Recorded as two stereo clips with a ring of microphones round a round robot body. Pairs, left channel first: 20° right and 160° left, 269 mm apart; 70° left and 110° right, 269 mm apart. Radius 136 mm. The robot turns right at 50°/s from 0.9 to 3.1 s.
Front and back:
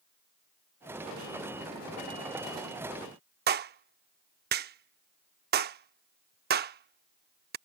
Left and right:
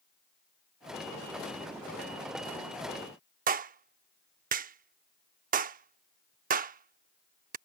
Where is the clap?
160° right.